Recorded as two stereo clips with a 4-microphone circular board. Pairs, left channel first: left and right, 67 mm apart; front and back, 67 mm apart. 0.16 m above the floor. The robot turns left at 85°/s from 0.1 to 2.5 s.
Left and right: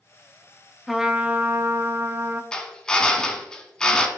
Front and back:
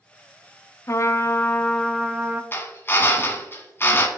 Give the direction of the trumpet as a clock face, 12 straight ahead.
12 o'clock.